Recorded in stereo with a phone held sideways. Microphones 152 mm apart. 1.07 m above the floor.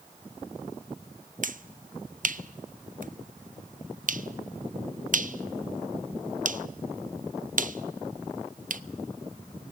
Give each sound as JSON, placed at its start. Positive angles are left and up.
{"t": 1.4, "sound": "a finger snap", "side_deg": -60, "distance_m": 0.5}